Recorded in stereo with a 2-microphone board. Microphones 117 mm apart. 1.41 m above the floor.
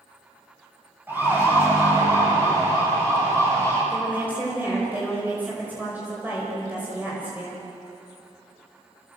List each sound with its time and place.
1.1 s a siren: 15° right (ahead or behind), 9 m; by 3.8 s 30° right (ahead or behind), 11 m
3.9 s a woman speaking: 15° right (ahead or behind), 5.5 m